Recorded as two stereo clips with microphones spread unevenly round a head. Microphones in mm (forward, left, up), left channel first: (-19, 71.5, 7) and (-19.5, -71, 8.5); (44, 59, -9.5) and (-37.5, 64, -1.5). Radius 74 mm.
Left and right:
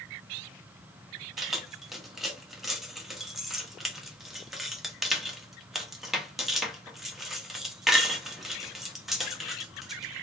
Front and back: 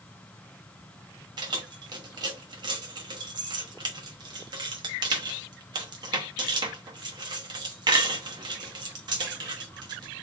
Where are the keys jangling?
Straight behind, 1.0 m.